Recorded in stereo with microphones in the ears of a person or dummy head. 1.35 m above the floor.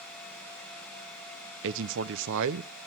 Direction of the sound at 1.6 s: 70° right (ahead or behind).